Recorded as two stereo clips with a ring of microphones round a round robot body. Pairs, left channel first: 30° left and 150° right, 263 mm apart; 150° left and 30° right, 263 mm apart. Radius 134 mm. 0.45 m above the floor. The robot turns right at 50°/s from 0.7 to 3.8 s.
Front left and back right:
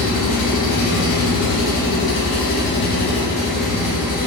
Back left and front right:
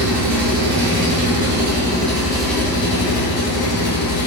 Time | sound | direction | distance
0.0 | an engine running | 25° right | 0.8 m